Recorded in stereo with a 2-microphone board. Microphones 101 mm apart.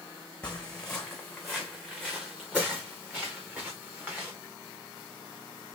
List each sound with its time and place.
0.4 s footsteps: 10° left (ahead or behind), 2.0 m; by 4.3 s 20° right (ahead or behind), 3.5 m